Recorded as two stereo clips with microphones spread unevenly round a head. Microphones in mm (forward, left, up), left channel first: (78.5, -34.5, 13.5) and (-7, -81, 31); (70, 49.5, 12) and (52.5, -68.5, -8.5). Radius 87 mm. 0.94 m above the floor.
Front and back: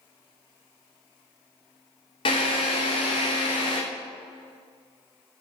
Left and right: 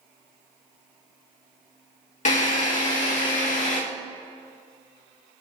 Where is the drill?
70° left, 3 m.